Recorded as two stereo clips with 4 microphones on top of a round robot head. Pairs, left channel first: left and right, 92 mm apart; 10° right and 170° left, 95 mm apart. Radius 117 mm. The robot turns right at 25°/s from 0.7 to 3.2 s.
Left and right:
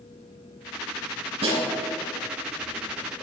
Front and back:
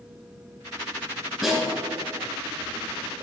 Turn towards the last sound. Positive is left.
turn(degrees=-60)